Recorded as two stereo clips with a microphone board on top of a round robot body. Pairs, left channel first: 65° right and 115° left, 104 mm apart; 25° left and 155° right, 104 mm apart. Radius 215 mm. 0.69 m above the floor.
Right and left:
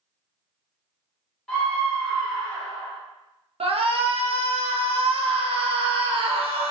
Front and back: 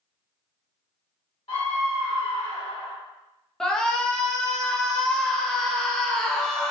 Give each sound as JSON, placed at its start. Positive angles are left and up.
{"t": 1.5, "sound": "a scream", "azimuth_deg": 10, "distance_m": 1.5}
{"t": 3.6, "sound": "a shout", "azimuth_deg": 105, "distance_m": 0.8}